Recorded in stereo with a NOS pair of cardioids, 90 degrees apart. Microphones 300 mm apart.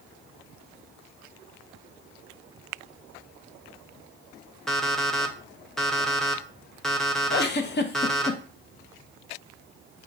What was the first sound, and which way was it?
An alarm clock, straight ahead.